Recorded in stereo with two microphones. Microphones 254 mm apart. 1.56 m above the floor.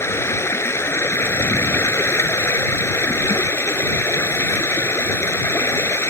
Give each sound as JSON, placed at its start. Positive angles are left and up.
{"t": 0.0, "sound": "running water", "side_deg": 10}